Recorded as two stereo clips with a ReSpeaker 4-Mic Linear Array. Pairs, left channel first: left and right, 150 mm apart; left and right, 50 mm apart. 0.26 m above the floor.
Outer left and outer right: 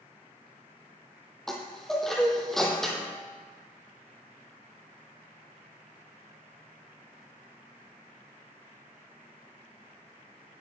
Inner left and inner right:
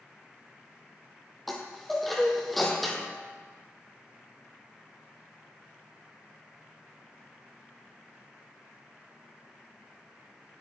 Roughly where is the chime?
Centre.